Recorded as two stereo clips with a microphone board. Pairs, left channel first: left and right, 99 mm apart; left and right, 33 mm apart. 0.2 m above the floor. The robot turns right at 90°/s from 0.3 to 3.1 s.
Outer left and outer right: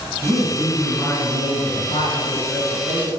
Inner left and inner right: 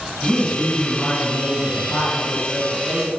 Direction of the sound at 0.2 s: 45° right.